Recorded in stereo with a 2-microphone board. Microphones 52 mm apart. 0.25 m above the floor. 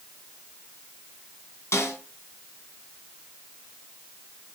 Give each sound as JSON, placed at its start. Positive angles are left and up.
{"t": 1.7, "sound": "a snare drum", "side_deg": 55, "distance_m": 3.0}